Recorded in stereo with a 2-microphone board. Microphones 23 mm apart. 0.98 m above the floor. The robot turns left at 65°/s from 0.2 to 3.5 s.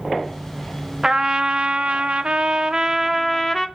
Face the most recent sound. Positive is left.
turn(degrees=170)